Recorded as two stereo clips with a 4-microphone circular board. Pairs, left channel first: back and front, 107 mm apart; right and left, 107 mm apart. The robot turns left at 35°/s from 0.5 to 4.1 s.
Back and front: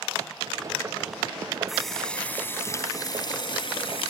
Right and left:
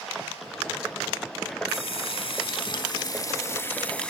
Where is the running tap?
85° right, 1.2 m; by 4.1 s 170° right, 1.2 m.